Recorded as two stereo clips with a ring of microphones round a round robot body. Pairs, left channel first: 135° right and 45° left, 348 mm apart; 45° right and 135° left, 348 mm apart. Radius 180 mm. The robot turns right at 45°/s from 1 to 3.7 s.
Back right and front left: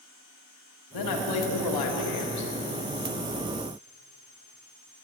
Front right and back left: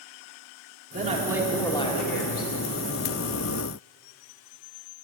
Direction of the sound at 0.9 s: 155° right.